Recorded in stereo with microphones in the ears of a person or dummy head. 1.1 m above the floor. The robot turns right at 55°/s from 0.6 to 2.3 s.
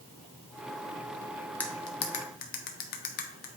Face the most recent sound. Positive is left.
turn(degrees=45)  # may be behind; listen again after turning